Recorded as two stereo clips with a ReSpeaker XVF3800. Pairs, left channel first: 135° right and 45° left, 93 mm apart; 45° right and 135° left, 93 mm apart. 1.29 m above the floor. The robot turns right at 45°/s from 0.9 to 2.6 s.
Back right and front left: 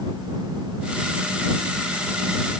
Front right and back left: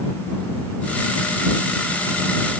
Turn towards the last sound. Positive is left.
No sound to turn to.